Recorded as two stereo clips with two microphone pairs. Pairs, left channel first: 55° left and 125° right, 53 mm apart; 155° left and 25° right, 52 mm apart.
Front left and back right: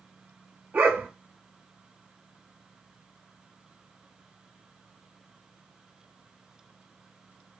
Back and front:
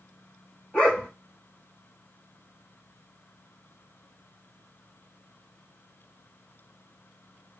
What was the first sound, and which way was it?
A dog barking, 145° right.